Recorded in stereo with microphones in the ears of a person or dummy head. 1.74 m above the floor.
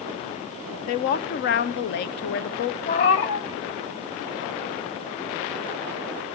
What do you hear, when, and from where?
0.9 s a woman speaking: 40° left (ahead or behind), 0.7 m
2.9 s a cat meowing: 30° left (ahead or behind), 1.0 m